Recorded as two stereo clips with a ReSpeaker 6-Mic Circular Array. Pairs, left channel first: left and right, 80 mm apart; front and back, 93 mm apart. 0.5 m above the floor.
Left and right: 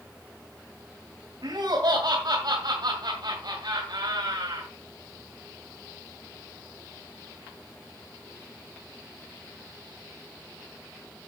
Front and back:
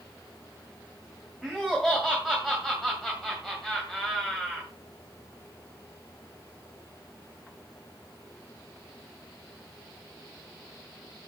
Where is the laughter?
90° right, 2 m.